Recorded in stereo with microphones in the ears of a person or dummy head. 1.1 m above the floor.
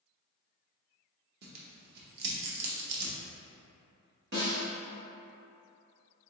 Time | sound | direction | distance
1.4 | tearing paper | 60° right (ahead or behind) | 0.9 m
4.3 | a snare drum | 65° right (ahead or behind) | 1.3 m